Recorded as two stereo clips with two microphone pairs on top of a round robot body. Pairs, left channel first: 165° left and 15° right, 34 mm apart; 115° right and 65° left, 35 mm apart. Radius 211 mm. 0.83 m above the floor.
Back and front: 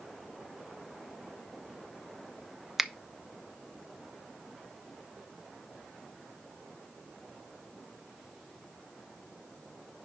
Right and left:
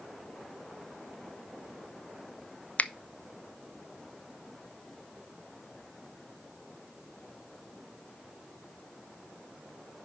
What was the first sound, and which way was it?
A finger snap, 90° right.